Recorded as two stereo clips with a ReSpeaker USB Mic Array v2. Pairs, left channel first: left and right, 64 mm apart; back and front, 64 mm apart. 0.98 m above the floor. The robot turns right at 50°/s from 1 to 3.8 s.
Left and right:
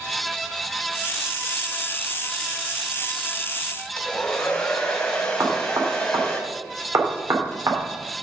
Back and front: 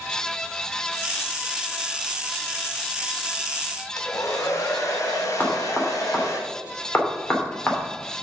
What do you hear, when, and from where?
4.0 s a hair dryer: 165° left, 1.5 m
5.4 s knocking: 120° right, 2.5 m